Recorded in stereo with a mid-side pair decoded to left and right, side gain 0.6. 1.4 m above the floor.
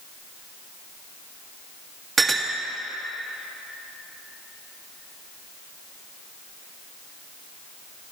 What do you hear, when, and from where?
2.2 s a clink: 30° right, 1.6 m